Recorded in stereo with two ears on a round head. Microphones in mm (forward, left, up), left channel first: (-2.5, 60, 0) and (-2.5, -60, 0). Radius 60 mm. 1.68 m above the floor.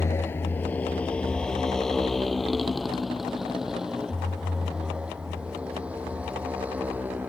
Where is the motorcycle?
20° left (ahead or behind); by 7.3 s 10° right (ahead or behind).